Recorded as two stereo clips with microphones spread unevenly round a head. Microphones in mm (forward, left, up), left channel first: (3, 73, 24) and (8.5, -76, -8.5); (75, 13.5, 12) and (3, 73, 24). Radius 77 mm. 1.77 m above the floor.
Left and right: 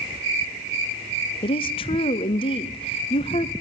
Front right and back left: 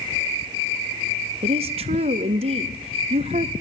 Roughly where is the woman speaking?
Behind left.